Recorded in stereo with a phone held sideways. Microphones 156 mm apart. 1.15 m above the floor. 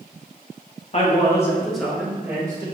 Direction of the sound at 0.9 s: 45° left (ahead or behind).